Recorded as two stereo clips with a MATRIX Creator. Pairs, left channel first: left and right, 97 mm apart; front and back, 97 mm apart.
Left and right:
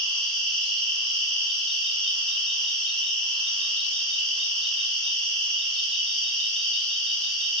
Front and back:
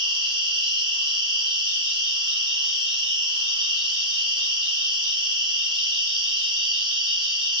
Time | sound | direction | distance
0.0 | an insect | 170° left | 1.3 m